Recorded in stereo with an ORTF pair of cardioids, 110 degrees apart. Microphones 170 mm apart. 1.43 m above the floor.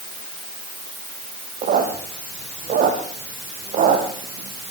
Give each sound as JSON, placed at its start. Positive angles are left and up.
{"t": 1.6, "sound": "a squeak", "azimuth_deg": -55, "distance_m": 6.0}